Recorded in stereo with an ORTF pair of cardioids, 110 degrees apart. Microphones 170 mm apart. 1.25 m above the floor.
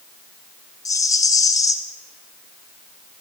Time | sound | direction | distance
0.8 | a rattle | 20° left | 0.9 m